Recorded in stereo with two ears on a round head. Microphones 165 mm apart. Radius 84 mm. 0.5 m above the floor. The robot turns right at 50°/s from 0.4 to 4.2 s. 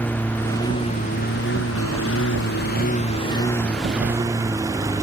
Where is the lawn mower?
10° left; by 5.0 s 160° right.